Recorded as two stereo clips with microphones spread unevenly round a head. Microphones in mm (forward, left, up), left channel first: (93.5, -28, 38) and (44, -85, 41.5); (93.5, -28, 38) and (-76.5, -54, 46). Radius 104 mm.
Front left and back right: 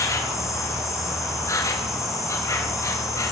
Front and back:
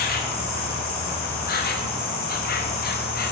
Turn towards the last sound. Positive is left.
turn(degrees=15)